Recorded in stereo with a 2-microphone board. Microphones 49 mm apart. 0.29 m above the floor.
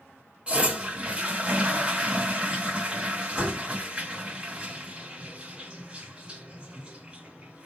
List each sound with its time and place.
0.5 s a toilet flushing: 20° right (ahead or behind), 1.3 m